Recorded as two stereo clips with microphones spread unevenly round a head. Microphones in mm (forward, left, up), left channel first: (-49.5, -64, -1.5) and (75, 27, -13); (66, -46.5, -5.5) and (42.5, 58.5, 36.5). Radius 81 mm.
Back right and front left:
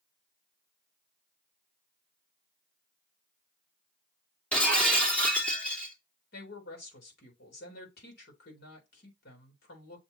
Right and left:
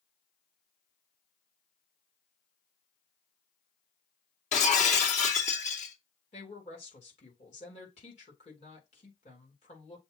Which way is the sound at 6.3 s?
125° right.